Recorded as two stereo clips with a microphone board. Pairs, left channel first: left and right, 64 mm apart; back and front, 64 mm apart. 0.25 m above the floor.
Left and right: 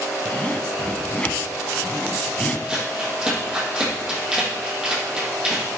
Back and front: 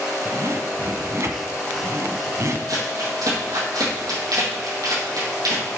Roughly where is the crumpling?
Ahead.